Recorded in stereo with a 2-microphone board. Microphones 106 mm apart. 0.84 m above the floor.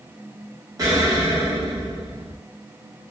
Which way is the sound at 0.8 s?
35° right (ahead or behind).